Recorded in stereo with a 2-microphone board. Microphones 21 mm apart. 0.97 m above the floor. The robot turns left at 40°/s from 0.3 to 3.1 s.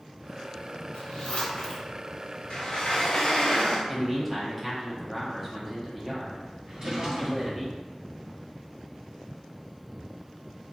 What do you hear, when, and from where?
0.9 s a zipper: 70° left (ahead or behind), 0.6 m; by 1.9 s 35° left (ahead or behind), 0.6 m
2.5 s a sliding door: 55° left (ahead or behind), 0.6 m; by 3.8 s 75° left (ahead or behind), 0.6 m
3.9 s a man speaking: 10° right (ahead or behind), 0.8 m
6.7 s a drawer: 40° right (ahead or behind), 1.2 m